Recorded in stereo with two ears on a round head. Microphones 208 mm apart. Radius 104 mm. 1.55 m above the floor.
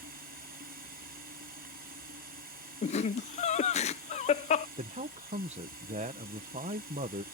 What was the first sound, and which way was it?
Running water, 40° right (ahead or behind).